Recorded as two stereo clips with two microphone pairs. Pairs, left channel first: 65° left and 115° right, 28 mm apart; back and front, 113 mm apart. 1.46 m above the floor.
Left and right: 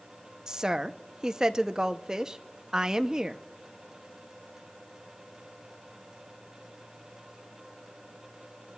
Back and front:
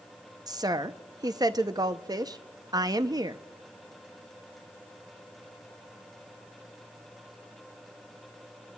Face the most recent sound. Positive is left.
turn(degrees=-50)